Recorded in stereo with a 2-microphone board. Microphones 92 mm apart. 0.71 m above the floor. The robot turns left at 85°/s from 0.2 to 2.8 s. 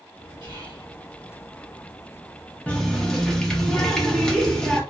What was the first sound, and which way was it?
Whispering, 80° right.